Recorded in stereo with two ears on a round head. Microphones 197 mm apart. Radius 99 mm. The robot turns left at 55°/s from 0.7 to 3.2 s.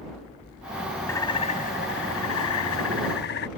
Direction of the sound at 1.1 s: 170° left.